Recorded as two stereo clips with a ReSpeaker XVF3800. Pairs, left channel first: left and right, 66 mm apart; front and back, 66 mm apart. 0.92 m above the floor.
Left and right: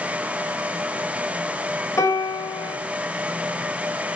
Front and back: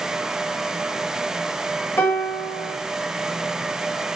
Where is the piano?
55° left, 1.0 m.